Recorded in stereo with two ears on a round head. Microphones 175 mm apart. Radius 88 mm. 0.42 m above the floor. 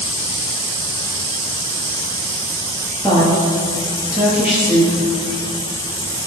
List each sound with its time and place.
3.0 s a woman speaking: 5° right (ahead or behind), 7.5 m